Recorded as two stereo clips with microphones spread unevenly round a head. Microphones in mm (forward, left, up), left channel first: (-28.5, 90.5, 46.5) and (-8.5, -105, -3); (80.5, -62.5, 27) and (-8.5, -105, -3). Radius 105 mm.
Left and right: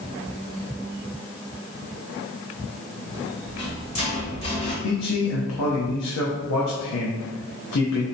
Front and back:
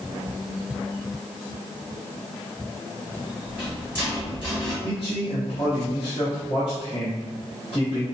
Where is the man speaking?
95° left, 0.6 m.